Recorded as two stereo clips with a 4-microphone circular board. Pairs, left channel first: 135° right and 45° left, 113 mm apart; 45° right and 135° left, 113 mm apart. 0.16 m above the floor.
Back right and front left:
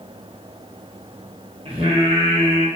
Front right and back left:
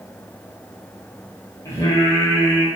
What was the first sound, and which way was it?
Singing, 15° left.